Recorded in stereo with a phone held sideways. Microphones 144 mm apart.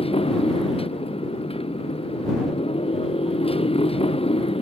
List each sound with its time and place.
0.0 s a motorcycle: 40° left (ahead or behind)